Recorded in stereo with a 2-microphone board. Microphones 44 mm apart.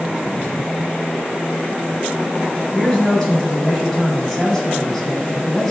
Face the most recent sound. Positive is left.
turn(degrees=5)  # may be behind; listen again after turning